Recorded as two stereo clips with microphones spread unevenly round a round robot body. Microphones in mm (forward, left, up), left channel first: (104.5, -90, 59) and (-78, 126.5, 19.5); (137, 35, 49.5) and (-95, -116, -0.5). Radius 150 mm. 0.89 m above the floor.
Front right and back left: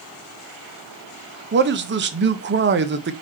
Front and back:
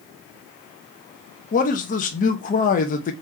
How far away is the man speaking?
About 0.6 m.